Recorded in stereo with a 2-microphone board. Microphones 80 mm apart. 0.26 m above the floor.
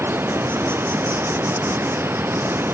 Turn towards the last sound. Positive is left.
turn(degrees=-30)  # may be behind; listen again after turning